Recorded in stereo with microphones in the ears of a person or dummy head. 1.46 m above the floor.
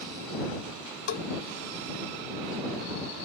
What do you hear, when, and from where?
1.1 s a bell: 60° left (ahead or behind)